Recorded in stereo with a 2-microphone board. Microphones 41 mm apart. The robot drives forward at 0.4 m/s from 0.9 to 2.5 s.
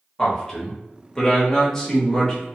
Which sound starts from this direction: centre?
A man speaking, at 0.2 s.